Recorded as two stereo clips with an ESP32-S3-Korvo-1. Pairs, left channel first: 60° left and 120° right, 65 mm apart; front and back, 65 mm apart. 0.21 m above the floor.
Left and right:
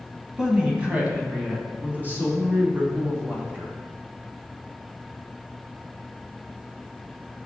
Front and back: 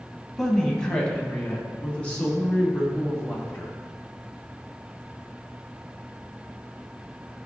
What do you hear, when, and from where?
0.4 s a woman speaking: 70° right, 1.0 m; by 3.7 s 65° right, 3 m